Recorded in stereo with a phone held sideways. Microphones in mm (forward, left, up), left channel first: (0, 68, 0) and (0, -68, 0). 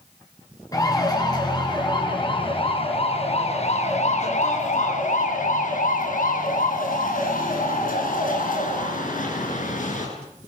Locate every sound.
0.7 s a siren: 25° left (ahead or behind), 8 m; by 10.1 s 70° left (ahead or behind), 9 m